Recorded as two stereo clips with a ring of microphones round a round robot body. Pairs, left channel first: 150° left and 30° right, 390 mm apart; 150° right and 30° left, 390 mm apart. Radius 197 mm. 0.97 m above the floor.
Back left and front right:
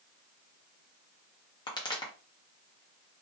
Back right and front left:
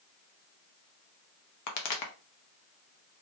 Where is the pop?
135° right, 0.7 m.